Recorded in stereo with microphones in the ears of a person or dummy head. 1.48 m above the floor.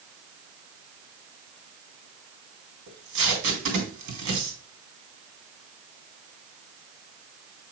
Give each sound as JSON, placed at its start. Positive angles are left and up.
{"t": 2.9, "sound": "tape being pulled", "side_deg": -65, "distance_m": 2.5}